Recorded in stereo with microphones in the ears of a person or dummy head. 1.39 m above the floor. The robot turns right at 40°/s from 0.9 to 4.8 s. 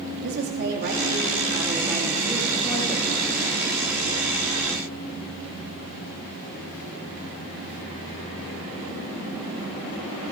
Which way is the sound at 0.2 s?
60° right.